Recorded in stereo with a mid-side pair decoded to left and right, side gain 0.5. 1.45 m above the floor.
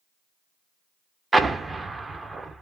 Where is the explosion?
25° right, 1.0 m.